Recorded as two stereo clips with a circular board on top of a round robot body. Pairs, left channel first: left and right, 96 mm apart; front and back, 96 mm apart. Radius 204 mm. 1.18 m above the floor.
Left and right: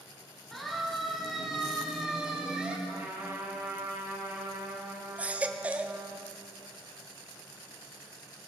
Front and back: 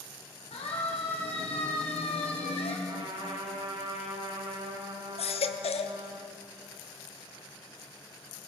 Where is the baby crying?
10° right, 0.9 m.